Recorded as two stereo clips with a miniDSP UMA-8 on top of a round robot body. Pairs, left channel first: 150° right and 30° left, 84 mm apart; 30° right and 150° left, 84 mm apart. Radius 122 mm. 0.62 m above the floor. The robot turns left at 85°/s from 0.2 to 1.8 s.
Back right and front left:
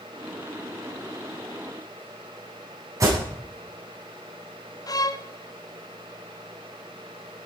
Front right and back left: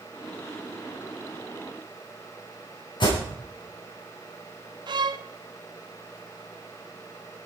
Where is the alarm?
20° right, 9.5 m.